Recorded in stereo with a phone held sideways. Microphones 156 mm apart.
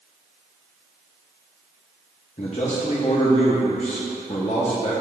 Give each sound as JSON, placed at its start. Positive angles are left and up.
{"t": 2.4, "sound": "a man speaking", "side_deg": 50, "distance_m": 0.9}